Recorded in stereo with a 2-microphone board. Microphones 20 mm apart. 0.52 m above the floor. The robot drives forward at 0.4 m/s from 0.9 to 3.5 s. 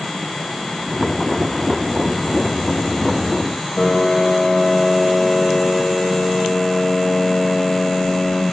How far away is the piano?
About 2.5 m.